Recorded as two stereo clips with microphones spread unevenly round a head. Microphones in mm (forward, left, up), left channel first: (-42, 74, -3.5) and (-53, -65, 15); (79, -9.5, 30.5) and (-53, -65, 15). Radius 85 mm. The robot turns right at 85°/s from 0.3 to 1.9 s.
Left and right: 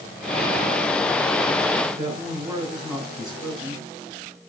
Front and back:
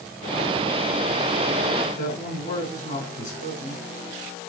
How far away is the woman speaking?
About 8 m.